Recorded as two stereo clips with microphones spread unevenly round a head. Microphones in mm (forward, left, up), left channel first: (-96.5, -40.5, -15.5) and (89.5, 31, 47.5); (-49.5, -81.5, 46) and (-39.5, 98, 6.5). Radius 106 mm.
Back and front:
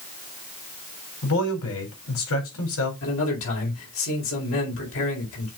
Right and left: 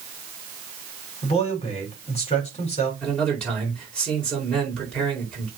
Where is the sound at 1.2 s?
150° right, 4 m.